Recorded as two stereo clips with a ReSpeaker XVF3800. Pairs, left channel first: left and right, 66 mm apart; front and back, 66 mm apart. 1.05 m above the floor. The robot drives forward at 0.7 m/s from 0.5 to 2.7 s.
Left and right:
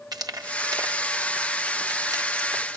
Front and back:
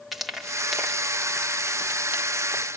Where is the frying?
90° right, 2 m; by 2.8 s 125° right, 2.5 m.